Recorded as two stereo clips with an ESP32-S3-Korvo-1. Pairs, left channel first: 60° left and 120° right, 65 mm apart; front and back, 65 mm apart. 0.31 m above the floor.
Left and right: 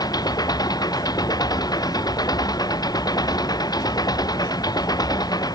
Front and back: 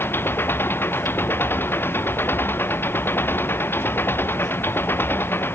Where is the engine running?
55° left.